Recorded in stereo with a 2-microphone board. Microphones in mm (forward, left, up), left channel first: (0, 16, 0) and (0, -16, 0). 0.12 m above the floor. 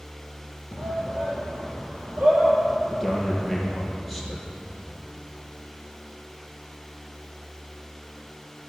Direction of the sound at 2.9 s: 5° left (ahead or behind).